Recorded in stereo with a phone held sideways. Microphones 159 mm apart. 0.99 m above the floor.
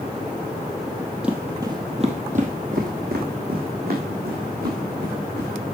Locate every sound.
1.2 s footsteps: 5° right (ahead or behind), 2.0 m; by 5.5 s 75° right (ahead or behind), 6 m